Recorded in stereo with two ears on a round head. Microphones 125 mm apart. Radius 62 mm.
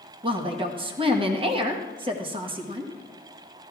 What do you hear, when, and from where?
0.2 s a woman speaking: 40° right (ahead or behind), 1.2 m